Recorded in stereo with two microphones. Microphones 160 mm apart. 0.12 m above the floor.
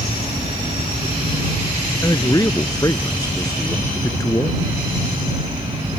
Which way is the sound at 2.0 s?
25° left (ahead or behind).